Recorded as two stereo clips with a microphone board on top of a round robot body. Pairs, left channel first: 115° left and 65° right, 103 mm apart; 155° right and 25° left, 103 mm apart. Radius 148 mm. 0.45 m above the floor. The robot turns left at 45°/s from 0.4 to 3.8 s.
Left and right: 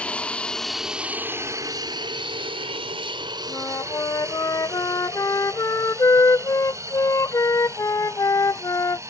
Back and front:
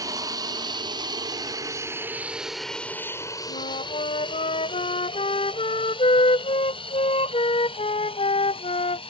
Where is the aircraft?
40° left; by 9.1 s 130° right.